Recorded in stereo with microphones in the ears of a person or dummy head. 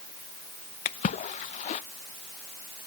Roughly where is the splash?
Left.